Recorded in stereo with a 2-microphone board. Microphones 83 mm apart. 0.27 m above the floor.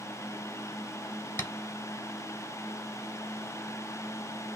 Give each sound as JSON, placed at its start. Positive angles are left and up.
{"t": 1.4, "sound": "tapping", "side_deg": 30, "distance_m": 0.8}